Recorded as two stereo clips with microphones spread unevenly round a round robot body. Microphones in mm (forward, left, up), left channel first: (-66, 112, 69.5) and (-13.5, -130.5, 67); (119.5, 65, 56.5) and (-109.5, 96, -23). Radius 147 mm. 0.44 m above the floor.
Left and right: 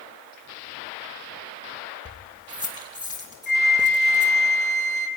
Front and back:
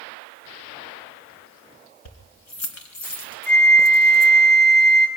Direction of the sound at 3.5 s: 45° left.